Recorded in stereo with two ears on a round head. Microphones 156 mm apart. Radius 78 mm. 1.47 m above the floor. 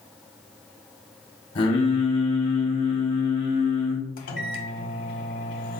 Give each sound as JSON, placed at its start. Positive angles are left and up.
{"t": 1.6, "sound": "singing", "side_deg": 30, "distance_m": 0.9}
{"t": 4.2, "sound": "a microwave", "side_deg": 50, "distance_m": 0.7}